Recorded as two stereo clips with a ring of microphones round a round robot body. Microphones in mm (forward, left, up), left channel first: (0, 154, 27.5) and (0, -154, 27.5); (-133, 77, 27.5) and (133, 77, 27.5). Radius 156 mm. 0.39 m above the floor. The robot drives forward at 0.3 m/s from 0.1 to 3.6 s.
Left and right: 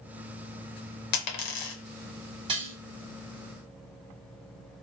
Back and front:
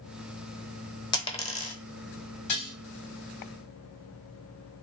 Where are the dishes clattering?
165° right, 1.7 m.